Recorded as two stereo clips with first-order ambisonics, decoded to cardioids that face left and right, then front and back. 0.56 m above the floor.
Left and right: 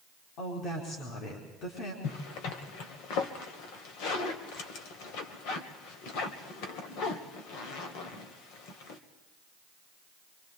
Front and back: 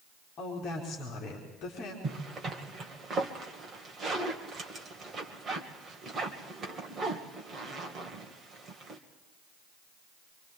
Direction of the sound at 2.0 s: 110° left.